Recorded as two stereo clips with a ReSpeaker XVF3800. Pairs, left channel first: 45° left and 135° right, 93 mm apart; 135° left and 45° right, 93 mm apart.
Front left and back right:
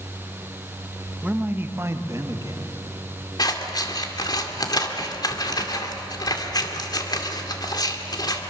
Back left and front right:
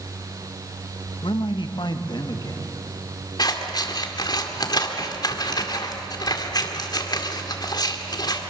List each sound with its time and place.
1.2 s a man speaking: 150° left, 1.1 m; by 2.8 s straight behind, 1.8 m
3.4 s scissors: 90° left, 2.0 m